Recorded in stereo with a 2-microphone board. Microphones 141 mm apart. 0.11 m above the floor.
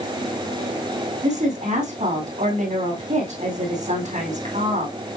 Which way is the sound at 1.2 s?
60° right (ahead or behind).